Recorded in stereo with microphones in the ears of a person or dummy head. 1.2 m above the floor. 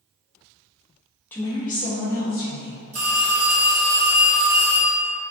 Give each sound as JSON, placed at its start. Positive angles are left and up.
{"t": 1.3, "sound": "a woman speaking", "side_deg": 10, "distance_m": 0.5}
{"t": 2.9, "sound": "a phone ringing", "side_deg": -75, "distance_m": 1.4}